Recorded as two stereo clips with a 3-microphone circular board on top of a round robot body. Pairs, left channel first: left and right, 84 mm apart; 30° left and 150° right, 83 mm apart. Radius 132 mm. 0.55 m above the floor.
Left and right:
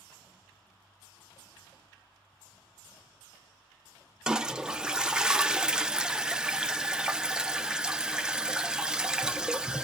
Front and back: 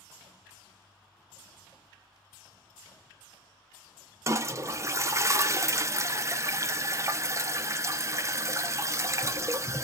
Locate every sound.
4.3 s a toilet flushing: 165° right, 0.6 m